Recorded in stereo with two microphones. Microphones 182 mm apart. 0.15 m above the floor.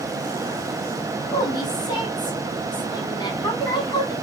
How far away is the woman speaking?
About 1.0 m.